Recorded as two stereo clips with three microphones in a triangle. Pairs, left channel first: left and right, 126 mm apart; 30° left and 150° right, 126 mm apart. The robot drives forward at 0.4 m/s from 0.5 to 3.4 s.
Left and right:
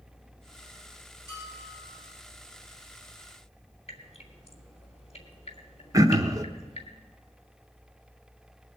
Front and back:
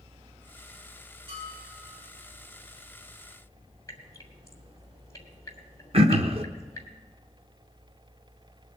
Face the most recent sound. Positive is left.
turn(degrees=-145)